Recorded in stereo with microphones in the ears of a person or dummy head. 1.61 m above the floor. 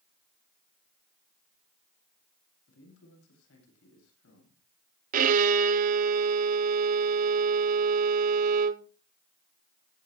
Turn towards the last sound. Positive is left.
turn(degrees=-50)  # may be behind; listen again after turning